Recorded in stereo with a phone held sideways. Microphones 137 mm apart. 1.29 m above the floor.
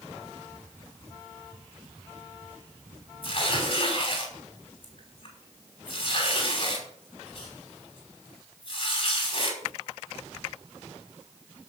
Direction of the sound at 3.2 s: 40° left (ahead or behind).